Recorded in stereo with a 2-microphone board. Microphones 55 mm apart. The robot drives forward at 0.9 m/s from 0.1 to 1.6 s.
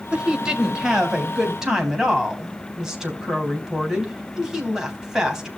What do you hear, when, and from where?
0.1 s a woman speaking: 20° right (ahead or behind), 2.5 m; by 5.5 s 15° right (ahead or behind), 3.5 m